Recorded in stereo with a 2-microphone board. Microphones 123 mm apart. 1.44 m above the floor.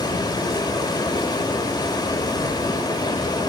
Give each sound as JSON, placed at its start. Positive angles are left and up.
{"t": 0.0, "sound": "running water", "side_deg": 35, "distance_m": 1.3}